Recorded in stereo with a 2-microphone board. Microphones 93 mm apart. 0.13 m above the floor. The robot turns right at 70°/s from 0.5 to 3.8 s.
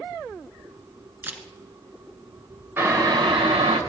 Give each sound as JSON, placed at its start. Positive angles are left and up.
{"t": 1.2, "sound": "a camera shutter", "side_deg": -25, "distance_m": 1.3}
{"t": 2.8, "sound": "boiling", "azimuth_deg": -160, "distance_m": 2.5}